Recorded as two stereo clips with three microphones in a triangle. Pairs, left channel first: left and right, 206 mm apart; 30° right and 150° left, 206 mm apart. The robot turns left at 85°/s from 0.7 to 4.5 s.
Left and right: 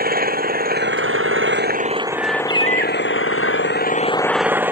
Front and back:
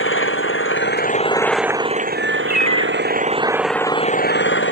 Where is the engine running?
45° right; by 4.7 s 10° right.